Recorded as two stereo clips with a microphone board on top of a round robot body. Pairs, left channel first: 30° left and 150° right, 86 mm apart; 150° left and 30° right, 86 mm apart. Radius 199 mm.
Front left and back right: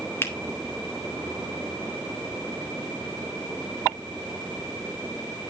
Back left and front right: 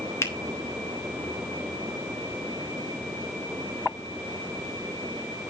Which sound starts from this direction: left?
A finger snap, at 0.2 s.